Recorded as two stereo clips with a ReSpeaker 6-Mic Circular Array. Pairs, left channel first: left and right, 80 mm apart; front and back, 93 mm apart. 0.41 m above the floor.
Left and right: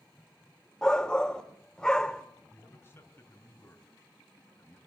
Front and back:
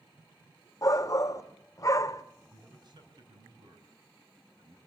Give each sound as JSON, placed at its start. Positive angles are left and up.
{"t": 0.8, "sound": "a shout", "azimuth_deg": 15, "distance_m": 0.9}
{"t": 2.5, "sound": "a man speaking", "azimuth_deg": 150, "distance_m": 3.5}